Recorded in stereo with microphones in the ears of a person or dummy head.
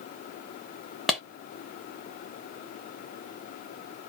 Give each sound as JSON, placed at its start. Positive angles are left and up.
{"t": 1.1, "sound": "a clap", "side_deg": 0, "distance_m": 0.9}